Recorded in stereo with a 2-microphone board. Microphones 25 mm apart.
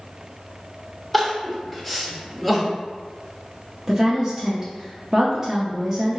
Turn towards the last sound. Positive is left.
turn(degrees=-15)  # may be behind; listen again after turning